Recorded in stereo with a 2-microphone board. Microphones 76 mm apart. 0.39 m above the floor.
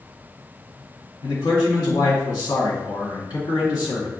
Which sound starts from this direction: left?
A man speaking, at 1.2 s.